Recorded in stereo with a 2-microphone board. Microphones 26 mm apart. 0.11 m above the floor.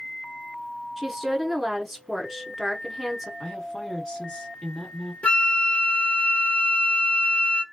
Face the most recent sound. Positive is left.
turn(degrees=60)  # may be behind; listen again after turning